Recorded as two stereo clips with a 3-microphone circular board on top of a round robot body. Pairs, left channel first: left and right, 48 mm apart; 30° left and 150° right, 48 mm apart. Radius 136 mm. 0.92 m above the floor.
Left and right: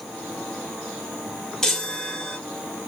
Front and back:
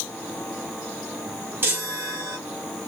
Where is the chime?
165° left, 1.4 m.